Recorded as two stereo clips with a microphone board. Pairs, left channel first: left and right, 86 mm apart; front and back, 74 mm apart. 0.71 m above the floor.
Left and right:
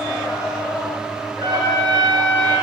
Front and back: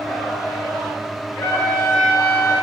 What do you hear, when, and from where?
1.4 s a trumpet: 65° right, 7 m